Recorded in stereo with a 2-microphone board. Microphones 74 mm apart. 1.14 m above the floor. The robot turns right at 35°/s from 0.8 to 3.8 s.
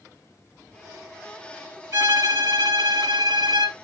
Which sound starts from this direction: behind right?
A violin, at 1.9 s.